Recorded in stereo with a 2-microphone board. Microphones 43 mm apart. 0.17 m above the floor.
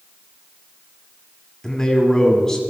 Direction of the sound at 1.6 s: 10° left (ahead or behind).